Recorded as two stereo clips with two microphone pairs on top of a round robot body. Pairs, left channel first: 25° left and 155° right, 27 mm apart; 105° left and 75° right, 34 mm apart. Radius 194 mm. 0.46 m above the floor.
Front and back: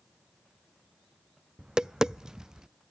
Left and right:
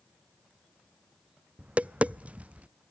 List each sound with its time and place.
1.6 s tapping: 85° right, 0.5 m